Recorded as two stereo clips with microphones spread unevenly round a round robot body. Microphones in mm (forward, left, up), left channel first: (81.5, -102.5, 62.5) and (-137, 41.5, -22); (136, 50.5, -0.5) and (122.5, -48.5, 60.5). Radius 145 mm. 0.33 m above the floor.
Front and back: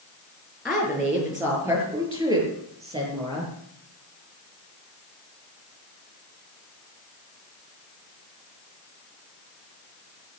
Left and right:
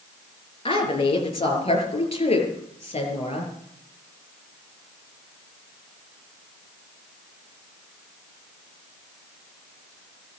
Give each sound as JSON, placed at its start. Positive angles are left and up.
{"t": 0.7, "sound": "a woman speaking", "azimuth_deg": 60, "distance_m": 5.5}